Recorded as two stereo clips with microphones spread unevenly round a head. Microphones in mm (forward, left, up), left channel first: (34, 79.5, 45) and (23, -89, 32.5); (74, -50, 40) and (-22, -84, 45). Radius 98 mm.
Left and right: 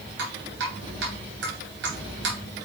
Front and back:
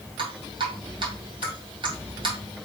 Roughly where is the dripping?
Behind right.